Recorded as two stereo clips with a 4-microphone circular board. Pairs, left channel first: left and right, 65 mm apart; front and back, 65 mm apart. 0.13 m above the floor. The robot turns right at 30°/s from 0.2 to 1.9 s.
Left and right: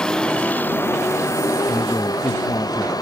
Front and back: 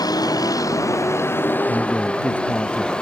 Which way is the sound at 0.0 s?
10° left.